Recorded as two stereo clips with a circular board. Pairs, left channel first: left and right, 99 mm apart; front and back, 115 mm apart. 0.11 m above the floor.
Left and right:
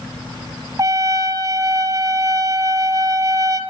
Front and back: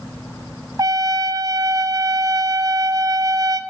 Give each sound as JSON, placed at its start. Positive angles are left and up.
{"t": 0.8, "sound": "a trumpet", "azimuth_deg": -130, "distance_m": 1.1}